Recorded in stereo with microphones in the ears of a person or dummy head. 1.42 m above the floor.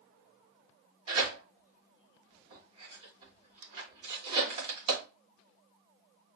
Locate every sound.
1.1 s tearing paper: 35° right (ahead or behind), 2.5 m